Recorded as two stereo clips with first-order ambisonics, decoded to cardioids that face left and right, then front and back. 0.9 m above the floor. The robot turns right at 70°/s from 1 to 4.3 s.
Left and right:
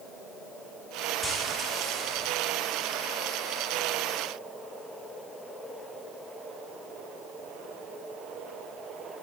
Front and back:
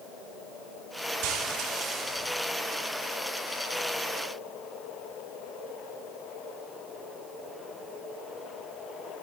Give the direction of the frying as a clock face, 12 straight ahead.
6 o'clock.